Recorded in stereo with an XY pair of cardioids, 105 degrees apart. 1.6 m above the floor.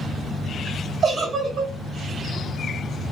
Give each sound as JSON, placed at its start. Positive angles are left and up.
{"t": 1.0, "sound": "a giggle", "azimuth_deg": -40, "distance_m": 2.5}